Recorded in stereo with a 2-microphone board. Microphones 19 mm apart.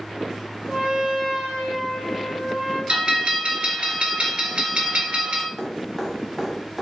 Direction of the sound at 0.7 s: 70° right (ahead or behind).